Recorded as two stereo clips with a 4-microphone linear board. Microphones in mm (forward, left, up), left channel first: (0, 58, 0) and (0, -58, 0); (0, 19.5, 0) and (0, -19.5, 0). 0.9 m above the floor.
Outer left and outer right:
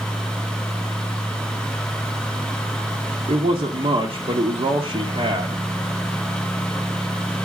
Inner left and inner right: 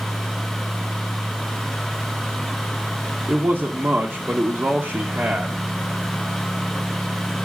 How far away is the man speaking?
About 1.3 m.